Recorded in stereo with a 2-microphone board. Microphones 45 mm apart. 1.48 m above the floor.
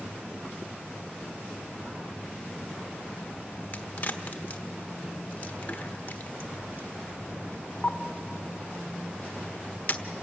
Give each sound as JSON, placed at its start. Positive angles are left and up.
{"t": 3.7, "sound": "a crack", "side_deg": 35, "distance_m": 1.2}